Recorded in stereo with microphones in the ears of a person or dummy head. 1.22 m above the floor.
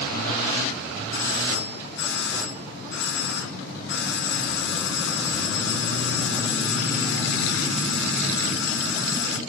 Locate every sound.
1.1 s a doorbell: 60° left (ahead or behind), 1.5 m